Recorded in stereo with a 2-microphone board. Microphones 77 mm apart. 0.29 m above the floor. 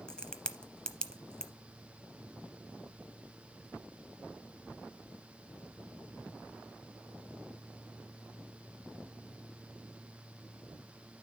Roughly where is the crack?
Centre.